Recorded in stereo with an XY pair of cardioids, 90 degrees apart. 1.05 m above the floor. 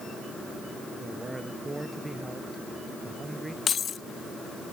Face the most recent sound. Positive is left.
turn(degrees=55)